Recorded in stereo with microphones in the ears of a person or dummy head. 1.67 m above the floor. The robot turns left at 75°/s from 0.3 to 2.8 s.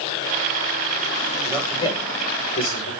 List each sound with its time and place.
1.4 s a man speaking: 5° right (ahead or behind), 7.5 m; by 2.9 s 85° left, 7.5 m